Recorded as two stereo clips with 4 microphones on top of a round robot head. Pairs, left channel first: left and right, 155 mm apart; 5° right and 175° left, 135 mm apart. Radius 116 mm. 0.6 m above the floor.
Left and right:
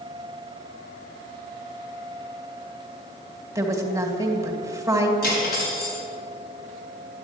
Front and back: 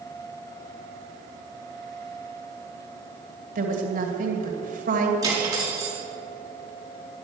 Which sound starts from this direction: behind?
A woman speaking, at 3.5 s.